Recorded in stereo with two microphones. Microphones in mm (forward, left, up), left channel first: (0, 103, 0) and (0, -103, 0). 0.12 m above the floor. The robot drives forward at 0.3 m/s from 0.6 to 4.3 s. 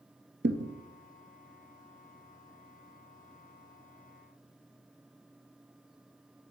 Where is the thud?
60° right (ahead or behind), 0.8 m.